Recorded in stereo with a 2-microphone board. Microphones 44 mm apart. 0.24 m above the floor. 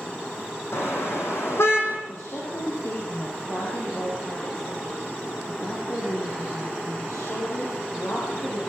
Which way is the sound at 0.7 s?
70° left (ahead or behind).